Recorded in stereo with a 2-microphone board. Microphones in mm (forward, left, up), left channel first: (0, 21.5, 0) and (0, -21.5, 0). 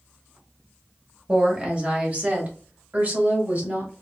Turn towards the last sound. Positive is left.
turn(degrees=-45)  # may be behind; listen again after turning